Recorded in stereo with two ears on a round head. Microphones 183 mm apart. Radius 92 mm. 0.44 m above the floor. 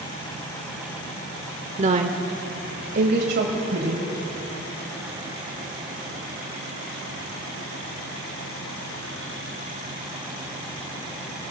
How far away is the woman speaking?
About 1.0 m.